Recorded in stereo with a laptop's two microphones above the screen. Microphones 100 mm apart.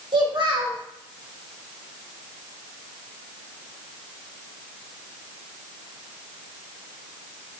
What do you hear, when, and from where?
0.1 s a child speaking: 50° right (ahead or behind), 1.2 m